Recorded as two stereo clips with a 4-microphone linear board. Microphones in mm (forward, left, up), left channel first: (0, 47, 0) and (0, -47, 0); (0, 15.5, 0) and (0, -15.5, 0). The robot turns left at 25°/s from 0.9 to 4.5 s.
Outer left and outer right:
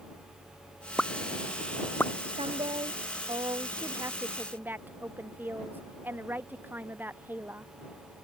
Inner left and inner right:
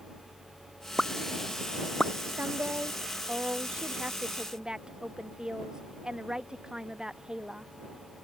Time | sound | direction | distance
1.0 | a pop | 5° left (ahead or behind) | ?
2.3 | a woman speaking | 105° right | ?